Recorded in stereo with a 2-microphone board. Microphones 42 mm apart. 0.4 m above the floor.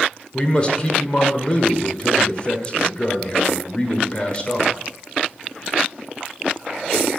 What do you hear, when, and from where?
0.3 s a man speaking: 25° left (ahead or behind), 1.5 m